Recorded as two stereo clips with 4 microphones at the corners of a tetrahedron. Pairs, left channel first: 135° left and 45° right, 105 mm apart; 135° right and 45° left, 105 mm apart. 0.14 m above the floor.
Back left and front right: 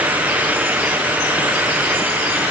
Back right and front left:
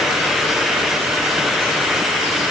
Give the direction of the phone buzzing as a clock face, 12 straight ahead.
No phone buzzing in this recording.